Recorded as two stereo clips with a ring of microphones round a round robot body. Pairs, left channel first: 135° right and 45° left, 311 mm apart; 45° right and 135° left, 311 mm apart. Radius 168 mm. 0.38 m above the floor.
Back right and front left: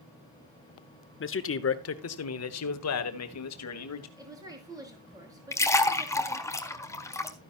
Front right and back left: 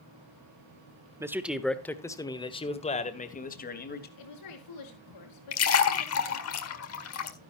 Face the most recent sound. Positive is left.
turn(degrees=-55)